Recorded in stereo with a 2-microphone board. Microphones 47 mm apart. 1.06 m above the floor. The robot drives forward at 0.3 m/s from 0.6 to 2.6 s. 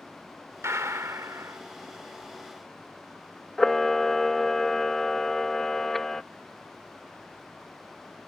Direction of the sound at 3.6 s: 10° left (ahead or behind).